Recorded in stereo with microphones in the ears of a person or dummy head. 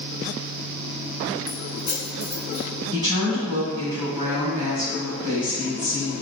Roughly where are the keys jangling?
Left.